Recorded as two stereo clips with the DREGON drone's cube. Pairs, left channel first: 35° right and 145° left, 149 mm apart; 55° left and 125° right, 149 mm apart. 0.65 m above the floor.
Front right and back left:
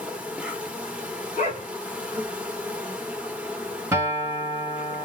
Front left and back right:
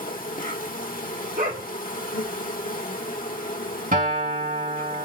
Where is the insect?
65° left, 1.2 m.